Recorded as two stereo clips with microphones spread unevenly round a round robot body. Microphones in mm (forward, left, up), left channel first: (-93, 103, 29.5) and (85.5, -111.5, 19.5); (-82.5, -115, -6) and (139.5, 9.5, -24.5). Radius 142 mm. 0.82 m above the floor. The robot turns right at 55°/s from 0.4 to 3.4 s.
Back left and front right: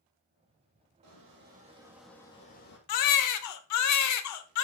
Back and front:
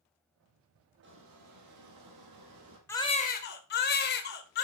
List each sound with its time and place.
1.0 s a squeak: 15° right, 3 m; by 2.8 s 80° left, 3 m
2.9 s a baby crying: 130° left, 0.9 m; by 4.6 s 155° left, 0.9 m